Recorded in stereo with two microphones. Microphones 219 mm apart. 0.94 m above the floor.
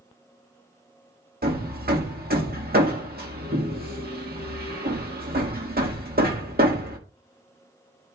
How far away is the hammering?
About 1.6 m.